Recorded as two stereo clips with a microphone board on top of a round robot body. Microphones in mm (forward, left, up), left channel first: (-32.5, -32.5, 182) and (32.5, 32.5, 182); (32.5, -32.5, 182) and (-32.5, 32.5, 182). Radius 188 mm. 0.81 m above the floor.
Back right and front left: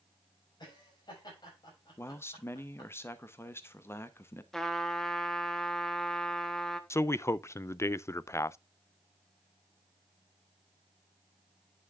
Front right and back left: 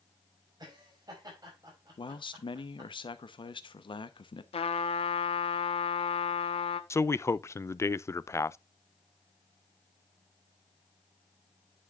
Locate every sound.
0.6 s laughter: straight behind, 5.5 m
2.0 s a man speaking: 70° right, 1.0 m
4.5 s a trumpet: 50° right, 0.9 m
6.9 s a man speaking: 90° right, 0.6 m